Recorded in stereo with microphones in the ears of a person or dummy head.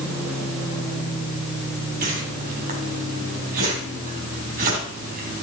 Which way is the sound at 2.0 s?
50° right (ahead or behind).